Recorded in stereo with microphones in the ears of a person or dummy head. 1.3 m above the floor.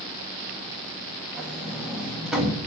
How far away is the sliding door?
About 2 m.